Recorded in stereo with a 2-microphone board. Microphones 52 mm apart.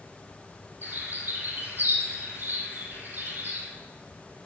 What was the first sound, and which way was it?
A bird, 40° right (ahead or behind).